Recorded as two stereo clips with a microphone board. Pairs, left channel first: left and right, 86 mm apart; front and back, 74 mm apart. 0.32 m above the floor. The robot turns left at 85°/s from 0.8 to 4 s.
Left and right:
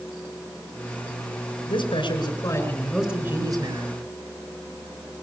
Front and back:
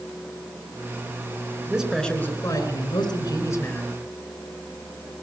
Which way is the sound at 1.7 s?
110° left.